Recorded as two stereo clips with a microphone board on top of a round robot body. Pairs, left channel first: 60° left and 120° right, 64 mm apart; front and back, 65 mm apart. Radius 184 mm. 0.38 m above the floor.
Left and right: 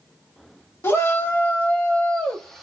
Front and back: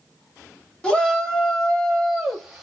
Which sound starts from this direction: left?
A shout, at 0.8 s.